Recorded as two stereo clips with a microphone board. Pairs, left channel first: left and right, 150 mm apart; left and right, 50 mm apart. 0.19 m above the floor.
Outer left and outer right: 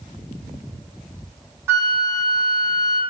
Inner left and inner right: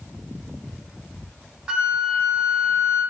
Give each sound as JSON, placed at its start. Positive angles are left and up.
{"t": 1.7, "sound": "a flute", "side_deg": -15, "distance_m": 0.6}